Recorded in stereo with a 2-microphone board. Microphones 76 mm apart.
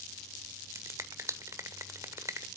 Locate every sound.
0.8 s a finger snap: 40° right (ahead or behind), 1.1 m